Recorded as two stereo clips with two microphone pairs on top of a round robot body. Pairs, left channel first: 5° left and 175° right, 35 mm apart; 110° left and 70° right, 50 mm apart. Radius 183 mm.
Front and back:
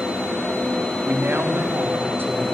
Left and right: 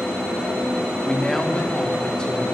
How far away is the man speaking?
About 2.5 m.